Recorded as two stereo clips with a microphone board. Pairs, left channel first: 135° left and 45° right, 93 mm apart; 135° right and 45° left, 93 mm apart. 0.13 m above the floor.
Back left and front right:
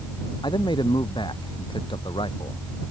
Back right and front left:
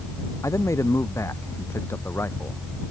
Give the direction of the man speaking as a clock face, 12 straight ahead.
6 o'clock.